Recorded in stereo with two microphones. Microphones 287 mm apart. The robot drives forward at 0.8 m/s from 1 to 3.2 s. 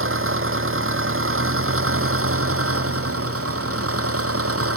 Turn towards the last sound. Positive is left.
turn(degrees=-50)  # may be behind; listen again after turning